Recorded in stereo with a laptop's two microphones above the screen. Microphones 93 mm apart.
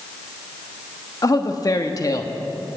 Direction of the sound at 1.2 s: 40° left (ahead or behind).